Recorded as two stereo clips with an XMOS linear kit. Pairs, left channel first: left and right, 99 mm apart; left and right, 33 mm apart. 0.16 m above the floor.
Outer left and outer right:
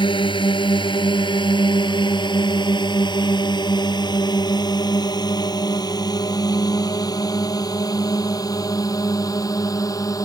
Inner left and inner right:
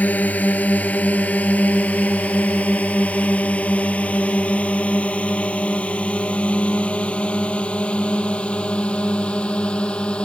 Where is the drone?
55° left (ahead or behind); by 10.3 s 35° left (ahead or behind).